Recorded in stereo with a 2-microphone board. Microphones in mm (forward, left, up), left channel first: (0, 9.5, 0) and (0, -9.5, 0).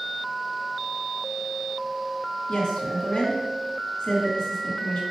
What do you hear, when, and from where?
2.5 s a woman speaking: 55° left (ahead or behind), 2 m